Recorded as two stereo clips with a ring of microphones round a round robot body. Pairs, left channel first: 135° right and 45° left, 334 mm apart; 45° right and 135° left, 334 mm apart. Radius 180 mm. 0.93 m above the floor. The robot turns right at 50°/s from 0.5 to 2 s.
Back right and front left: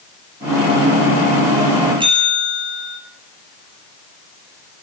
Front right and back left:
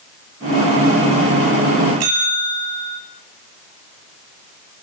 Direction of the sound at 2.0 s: 120° left.